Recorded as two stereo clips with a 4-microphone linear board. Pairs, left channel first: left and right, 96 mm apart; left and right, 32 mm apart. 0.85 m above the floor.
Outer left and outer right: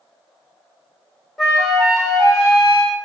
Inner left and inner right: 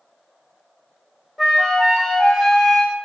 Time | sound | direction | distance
1.4 | a flute | centre (ahead or behind) | 1.8 m